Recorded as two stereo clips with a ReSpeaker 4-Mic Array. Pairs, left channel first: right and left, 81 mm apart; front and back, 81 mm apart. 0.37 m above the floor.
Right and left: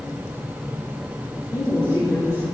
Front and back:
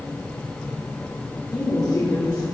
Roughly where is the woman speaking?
Ahead right.